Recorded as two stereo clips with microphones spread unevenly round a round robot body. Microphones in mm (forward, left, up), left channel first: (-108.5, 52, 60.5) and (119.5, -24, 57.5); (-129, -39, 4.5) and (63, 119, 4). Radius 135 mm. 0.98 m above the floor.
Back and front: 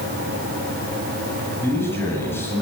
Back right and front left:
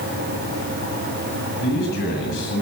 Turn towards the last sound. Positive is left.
turn(degrees=-120)